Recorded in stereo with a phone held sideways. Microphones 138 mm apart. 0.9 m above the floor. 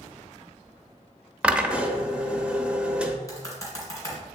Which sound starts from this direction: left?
Typing on a keyboard, at 3.3 s.